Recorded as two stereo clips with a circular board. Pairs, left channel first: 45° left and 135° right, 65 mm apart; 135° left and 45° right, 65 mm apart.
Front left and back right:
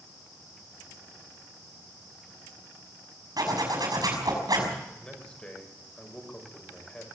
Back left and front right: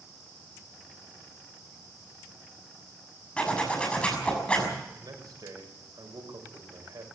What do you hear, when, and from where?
3.4 s a zipper: 155° right, 6 m
5.0 s a man speaking: 30° right, 6 m